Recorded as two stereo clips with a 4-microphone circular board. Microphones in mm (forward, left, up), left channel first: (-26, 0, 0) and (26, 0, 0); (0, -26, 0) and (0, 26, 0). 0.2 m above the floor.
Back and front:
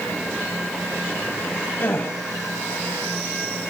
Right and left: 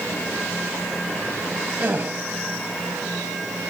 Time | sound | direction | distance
1.8 | a gasp | 150° left | 4.5 m